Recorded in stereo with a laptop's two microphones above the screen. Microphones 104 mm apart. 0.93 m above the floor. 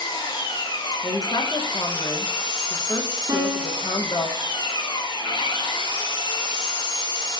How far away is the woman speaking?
About 0.7 m.